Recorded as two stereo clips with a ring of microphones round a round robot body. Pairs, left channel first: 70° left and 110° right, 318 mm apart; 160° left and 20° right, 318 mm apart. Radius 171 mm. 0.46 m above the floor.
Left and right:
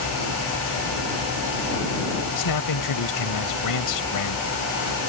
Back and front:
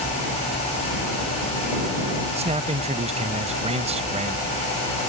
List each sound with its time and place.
2.4 s a man speaking: 50° left